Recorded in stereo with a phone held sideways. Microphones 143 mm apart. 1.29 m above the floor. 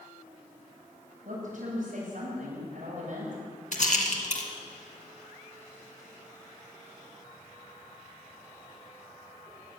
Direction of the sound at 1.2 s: 70° right (ahead or behind).